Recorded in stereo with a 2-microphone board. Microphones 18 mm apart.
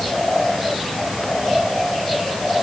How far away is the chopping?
No chopping in this recording.